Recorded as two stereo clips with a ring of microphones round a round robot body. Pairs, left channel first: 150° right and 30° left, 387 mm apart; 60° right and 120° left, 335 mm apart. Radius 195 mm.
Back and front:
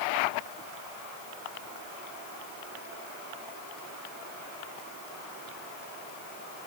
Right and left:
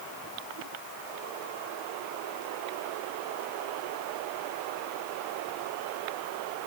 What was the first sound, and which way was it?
Only background noise.